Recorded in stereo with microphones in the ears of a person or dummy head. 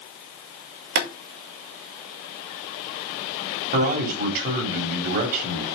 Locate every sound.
0.9 s boiling: 65° right (ahead or behind), 1.8 m
3.7 s a man speaking: 50° right (ahead or behind), 3.5 m